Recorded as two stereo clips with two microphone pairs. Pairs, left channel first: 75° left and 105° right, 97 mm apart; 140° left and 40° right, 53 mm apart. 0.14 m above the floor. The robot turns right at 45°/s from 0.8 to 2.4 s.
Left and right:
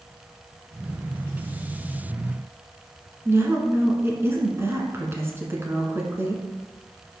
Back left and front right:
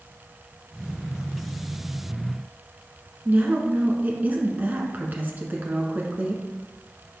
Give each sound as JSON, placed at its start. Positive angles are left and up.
{"t": 3.2, "sound": "a woman speaking", "azimuth_deg": -60, "distance_m": 1.2}